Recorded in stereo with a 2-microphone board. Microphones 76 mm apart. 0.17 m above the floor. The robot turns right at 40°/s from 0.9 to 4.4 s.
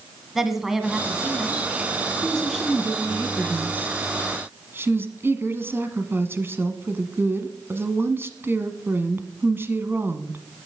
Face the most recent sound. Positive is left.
turn(degrees=-110)